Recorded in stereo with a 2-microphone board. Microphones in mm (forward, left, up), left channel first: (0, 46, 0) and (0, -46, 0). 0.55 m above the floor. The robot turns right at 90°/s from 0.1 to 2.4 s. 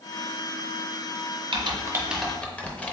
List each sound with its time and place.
1.5 s typing on a keyboard: 65° right (ahead or behind), 0.6 m; by 3.0 s 15° left (ahead or behind), 0.6 m